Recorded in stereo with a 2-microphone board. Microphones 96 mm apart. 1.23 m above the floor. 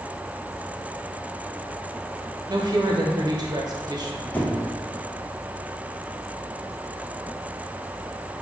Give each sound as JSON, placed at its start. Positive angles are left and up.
{"t": 2.5, "sound": "a woman speaking", "side_deg": -45, "distance_m": 0.8}
{"t": 4.3, "sound": "a squeak", "side_deg": 15, "distance_m": 0.6}